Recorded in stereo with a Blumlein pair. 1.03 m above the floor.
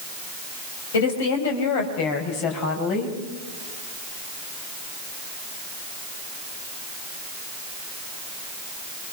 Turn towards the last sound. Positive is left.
turn(degrees=40)